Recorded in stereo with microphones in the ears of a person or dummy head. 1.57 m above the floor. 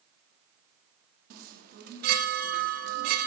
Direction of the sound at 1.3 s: 50° right (ahead or behind).